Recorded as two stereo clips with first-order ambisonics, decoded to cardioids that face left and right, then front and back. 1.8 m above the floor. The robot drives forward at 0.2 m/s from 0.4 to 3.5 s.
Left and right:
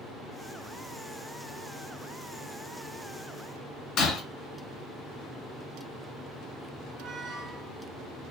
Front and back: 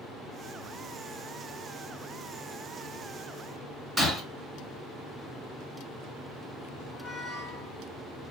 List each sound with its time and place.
4.0 s breaking glass: 105° left, 2.5 m
6.9 s a squeak: 105° right, 1.9 m